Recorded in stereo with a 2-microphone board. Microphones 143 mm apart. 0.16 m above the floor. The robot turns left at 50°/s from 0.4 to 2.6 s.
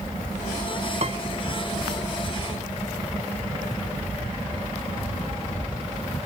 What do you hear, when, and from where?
1.0 s a piano: 50° right (ahead or behind); by 1.2 s 40° right (ahead or behind)